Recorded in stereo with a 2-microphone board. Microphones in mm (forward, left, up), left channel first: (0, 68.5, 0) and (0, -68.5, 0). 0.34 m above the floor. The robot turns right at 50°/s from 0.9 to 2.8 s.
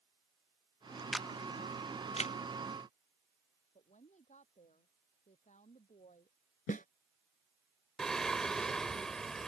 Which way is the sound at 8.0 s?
5° left (ahead or behind).